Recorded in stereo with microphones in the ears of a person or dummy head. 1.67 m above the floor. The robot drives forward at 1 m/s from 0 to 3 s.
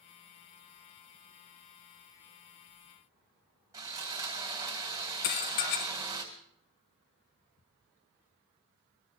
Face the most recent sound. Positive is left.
turn(degrees=50)  # may be behind; listen again after turning